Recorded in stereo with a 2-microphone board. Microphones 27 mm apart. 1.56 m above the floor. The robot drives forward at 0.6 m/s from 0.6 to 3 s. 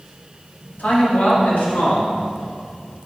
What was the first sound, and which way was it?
A man speaking, 70° left (ahead or behind).